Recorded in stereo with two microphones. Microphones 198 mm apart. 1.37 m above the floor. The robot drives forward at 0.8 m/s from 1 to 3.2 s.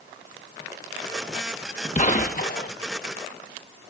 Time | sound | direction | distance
1.9 | a gunshot | 35° left (ahead or behind) | 1.1 m